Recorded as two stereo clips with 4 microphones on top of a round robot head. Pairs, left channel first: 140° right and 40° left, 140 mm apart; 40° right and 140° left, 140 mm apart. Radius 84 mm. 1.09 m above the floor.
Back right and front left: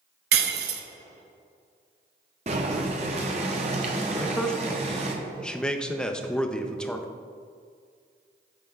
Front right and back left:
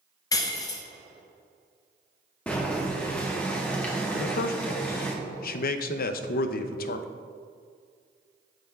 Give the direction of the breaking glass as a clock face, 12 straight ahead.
11 o'clock.